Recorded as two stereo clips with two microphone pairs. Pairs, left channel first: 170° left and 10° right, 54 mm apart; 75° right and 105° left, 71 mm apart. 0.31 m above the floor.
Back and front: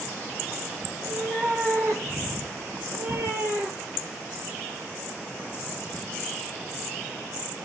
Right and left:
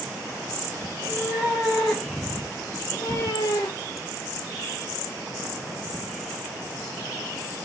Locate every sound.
0.9 s a cat meowing: 35° left, 1.6 m; by 4.0 s 70° right, 1.1 m